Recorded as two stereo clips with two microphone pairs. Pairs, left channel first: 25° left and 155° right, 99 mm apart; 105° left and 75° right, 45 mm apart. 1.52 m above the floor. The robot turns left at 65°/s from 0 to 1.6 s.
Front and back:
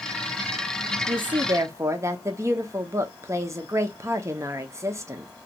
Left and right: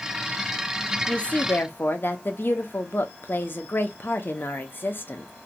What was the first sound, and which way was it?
A woman speaking, straight behind.